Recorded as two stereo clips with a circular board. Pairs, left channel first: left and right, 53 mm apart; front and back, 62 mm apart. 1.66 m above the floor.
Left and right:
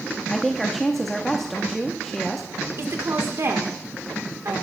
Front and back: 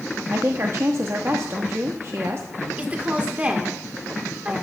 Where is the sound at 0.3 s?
175° left, 0.8 m.